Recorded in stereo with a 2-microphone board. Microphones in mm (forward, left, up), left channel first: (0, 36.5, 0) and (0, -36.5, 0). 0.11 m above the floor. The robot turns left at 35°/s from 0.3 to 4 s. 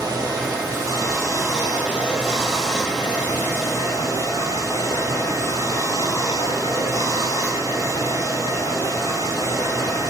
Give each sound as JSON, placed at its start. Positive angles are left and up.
{"t": 0.0, "sound": "running water", "azimuth_deg": -105, "distance_m": 1.5}